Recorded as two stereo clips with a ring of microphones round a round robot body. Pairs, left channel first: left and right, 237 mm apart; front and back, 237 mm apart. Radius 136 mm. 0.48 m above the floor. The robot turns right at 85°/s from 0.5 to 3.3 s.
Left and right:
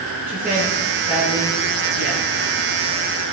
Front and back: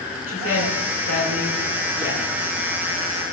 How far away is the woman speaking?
About 7 m.